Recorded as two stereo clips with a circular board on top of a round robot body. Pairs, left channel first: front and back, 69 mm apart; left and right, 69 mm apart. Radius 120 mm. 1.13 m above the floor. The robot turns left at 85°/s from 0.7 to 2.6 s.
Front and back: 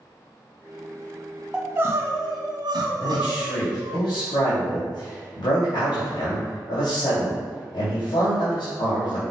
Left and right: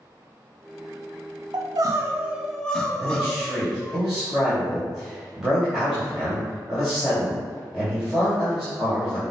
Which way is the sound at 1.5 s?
105° right.